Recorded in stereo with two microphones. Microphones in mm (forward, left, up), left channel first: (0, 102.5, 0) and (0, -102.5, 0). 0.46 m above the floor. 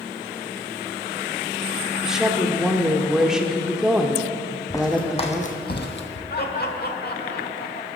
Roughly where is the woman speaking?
Centre.